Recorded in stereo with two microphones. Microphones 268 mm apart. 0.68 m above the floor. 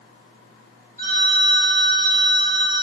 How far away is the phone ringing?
About 1.0 m.